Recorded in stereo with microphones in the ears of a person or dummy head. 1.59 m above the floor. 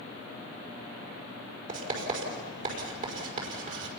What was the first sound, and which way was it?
Writing, 50° right (ahead or behind).